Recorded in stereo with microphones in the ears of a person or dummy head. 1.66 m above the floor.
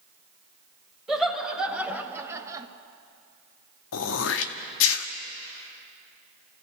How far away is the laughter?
About 1.9 m.